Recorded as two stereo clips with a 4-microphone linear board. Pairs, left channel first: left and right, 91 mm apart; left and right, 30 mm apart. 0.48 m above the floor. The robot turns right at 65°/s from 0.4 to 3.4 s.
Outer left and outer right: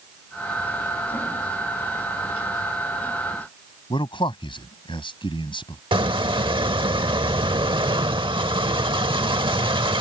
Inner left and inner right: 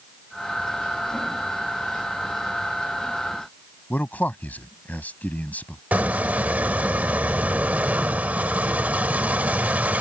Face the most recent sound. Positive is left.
turn(degrees=-65)  # may be behind; listen again after turning